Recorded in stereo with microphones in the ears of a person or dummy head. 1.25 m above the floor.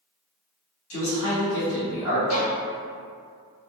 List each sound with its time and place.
0.9 s a man speaking: 70° left (ahead or behind), 1.5 m
2.3 s a violin: 65° left (ahead or behind), 1.0 m